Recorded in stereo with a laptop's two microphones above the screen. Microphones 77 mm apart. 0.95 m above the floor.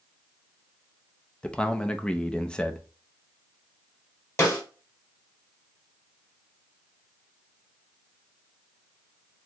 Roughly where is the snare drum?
Left.